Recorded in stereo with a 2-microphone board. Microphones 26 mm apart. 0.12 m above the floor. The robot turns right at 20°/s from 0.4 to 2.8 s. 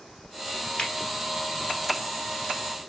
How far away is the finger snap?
About 1.6 m.